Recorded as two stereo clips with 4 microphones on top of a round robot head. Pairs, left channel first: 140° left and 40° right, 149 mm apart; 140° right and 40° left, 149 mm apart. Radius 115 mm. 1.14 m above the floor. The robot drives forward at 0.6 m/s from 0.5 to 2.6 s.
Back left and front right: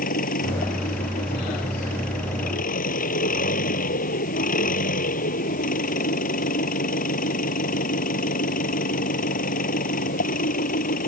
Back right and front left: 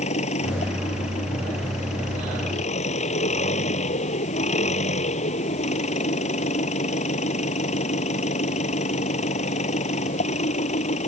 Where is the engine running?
175° left.